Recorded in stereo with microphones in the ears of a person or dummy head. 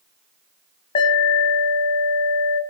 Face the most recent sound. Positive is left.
turn(degrees=35)  # may be behind; listen again after turning